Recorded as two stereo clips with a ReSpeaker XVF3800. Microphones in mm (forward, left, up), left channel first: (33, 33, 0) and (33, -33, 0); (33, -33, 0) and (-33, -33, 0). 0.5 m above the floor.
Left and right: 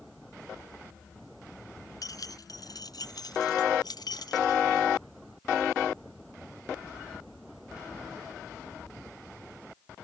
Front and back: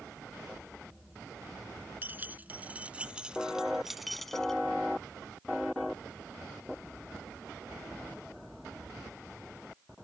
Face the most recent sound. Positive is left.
turn(degrees=80)